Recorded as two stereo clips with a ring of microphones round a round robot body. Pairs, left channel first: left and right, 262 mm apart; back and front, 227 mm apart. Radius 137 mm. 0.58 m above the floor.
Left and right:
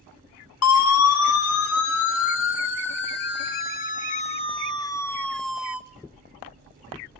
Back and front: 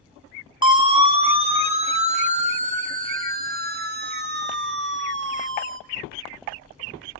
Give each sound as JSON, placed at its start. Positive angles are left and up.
{"t": 0.6, "sound": "a siren", "azimuth_deg": 70, "distance_m": 3.5}